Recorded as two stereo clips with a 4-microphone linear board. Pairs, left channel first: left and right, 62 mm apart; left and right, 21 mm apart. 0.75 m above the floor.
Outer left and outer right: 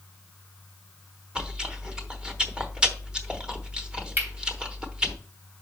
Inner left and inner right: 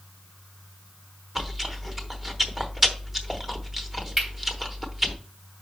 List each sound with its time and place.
1.4 s chewing: 15° right (ahead or behind), 0.9 m
4.2 s cutlery clinking: 35° right (ahead or behind), 3 m